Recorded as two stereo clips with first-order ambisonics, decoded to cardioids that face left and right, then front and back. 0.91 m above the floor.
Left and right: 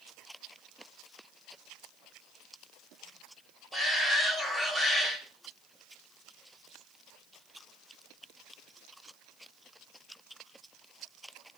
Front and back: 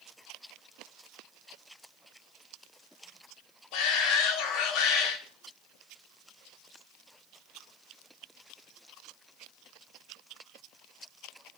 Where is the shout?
5° right, 3 m.